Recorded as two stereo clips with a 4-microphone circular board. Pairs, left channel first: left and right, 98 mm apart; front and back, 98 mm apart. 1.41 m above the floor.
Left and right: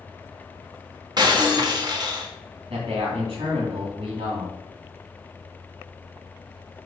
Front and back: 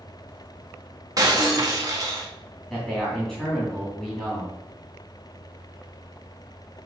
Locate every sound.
1.2 s breaking glass: 130° right, 1.5 m
2.7 s a man speaking: 90° right, 3 m